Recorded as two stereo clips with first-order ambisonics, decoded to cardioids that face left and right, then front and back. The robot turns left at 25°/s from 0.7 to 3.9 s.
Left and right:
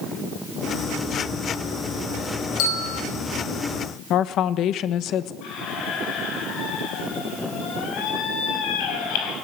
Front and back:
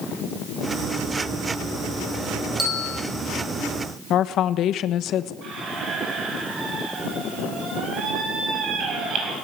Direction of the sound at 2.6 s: 90° left.